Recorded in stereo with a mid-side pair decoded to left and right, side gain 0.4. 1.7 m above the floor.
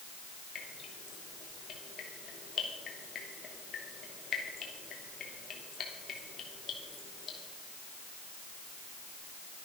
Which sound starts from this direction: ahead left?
Dripping, at 0.6 s.